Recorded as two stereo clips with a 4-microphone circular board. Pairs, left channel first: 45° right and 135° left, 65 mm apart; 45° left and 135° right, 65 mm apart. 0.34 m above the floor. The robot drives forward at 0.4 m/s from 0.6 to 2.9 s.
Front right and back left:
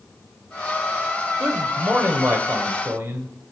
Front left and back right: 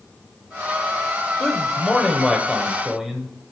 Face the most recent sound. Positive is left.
turn(degrees=150)